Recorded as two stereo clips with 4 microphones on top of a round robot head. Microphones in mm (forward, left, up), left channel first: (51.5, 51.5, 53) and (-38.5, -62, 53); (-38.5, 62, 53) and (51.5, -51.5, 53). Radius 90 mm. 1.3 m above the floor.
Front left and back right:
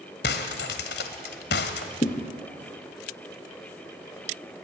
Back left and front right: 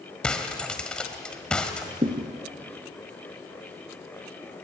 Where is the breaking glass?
45° left, 1.6 m.